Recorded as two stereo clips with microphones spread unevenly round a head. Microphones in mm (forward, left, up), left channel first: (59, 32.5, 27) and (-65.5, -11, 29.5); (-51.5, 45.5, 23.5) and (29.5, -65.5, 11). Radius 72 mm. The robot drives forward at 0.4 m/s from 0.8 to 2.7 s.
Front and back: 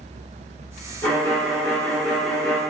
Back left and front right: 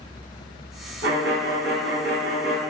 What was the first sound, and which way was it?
A violin, 55° right.